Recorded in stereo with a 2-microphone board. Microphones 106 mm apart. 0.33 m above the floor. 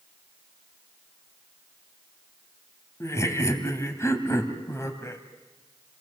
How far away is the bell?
I don't hear a bell.